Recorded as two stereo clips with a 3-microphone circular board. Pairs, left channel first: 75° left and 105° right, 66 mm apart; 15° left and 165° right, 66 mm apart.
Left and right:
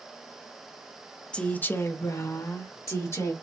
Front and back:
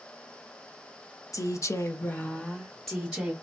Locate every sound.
1.3 s a woman speaking: 5° left, 0.7 m; by 3.3 s 110° left, 1.1 m